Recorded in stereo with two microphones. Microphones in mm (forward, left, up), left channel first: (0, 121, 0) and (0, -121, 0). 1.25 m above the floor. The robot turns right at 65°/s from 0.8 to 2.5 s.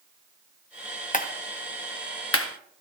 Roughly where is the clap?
Left.